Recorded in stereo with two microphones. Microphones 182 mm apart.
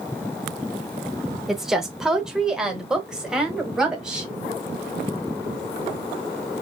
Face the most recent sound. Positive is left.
turn(degrees=-5)  # may be behind; listen again after turning